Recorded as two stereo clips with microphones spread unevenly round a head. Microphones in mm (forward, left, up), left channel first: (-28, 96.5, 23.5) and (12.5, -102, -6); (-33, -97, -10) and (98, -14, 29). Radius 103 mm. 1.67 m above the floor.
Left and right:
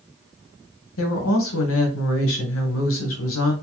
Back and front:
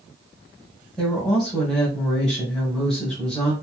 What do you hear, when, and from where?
1.0 s a woman speaking: 125° left, 1.2 m